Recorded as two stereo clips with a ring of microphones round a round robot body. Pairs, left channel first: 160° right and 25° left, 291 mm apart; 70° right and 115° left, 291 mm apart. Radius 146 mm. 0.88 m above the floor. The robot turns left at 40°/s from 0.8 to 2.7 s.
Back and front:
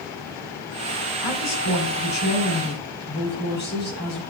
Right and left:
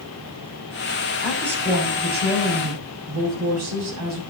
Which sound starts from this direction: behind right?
A woman speaking, at 1.2 s.